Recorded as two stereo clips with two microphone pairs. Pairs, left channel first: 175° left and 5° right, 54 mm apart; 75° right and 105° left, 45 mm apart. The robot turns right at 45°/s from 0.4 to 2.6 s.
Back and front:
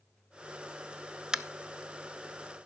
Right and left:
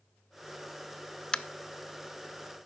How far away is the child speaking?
I don't hear a child speaking.